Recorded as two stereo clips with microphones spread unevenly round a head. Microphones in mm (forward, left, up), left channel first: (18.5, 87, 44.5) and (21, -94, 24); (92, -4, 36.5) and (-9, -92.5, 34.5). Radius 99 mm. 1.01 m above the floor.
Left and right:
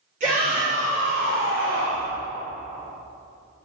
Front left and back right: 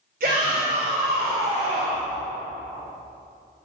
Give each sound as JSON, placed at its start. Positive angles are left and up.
{"t": 0.2, "sound": "a shout", "azimuth_deg": -140, "distance_m": 3.0}